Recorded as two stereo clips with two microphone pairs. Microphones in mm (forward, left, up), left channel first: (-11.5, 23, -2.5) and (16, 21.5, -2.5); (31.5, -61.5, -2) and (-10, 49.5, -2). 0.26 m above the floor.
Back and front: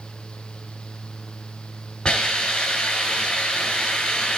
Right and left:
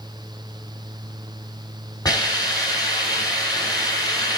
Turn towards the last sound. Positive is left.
turn(degrees=-120)